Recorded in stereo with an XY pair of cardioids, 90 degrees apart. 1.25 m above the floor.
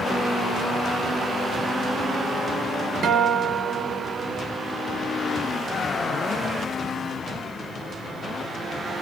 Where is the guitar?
60° right, 0.8 m.